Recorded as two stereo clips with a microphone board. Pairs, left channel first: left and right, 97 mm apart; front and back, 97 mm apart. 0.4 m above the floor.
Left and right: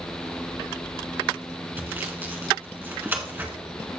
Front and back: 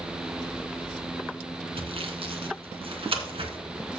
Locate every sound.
1.8 s sawing: 160° right, 1.5 m